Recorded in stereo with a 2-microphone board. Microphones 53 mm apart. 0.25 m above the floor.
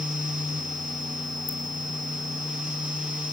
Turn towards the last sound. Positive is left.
turn(degrees=25)  # may be behind; listen again after turning